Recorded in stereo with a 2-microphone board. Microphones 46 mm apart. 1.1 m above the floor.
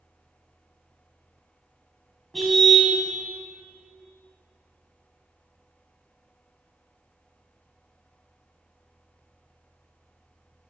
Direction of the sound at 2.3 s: 5° left (ahead or behind).